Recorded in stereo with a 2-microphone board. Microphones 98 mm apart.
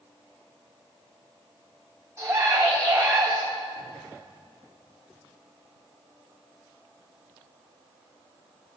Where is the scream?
35° right (ahead or behind), 1.6 m.